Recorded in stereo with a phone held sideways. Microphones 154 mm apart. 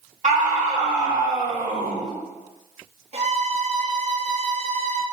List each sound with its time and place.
0.2 s a scream: 55° right (ahead or behind), 2 m
3.1 s a violin: 45° right (ahead or behind), 0.8 m